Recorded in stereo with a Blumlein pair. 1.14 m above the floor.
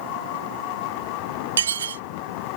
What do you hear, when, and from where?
1.6 s dishes clattering: 65° right